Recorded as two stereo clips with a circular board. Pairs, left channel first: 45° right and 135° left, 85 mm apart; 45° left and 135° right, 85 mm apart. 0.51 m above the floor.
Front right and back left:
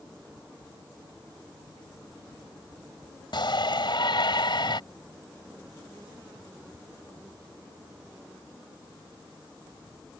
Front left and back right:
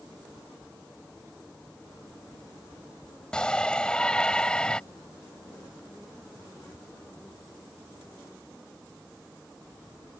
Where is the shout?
35° right.